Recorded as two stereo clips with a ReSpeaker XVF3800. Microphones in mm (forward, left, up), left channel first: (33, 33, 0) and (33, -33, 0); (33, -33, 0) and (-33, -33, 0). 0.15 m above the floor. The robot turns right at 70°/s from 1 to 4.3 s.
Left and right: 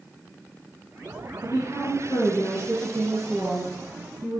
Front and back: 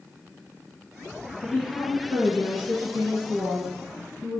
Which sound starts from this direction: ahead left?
A woman speaking, at 1.4 s.